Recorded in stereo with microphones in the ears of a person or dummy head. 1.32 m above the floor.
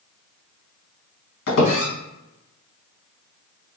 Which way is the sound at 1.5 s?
65° left (ahead or behind).